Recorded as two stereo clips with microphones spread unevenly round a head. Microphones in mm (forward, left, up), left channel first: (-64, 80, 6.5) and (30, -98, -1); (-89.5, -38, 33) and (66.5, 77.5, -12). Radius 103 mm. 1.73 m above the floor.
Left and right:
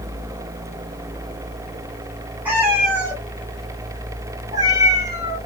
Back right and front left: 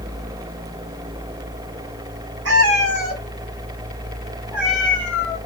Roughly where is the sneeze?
No sneeze in this recording.